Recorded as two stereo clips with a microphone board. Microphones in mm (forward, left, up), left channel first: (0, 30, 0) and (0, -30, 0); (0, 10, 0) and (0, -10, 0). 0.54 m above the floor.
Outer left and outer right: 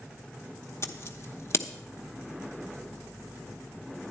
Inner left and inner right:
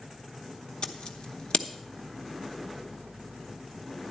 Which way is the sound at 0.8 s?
40° left (ahead or behind).